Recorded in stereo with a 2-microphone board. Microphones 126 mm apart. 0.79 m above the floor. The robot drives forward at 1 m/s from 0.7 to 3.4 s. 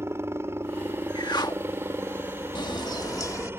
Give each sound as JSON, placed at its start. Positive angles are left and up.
{"t": 0.0, "sound": "a helicopter", "side_deg": -20}
{"t": 1.1, "sound": "a whoosh", "side_deg": 35}
{"t": 2.5, "sound": "a bird", "side_deg": 35}